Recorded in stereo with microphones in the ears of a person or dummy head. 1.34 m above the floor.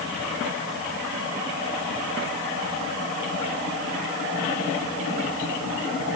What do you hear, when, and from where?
Only background noise.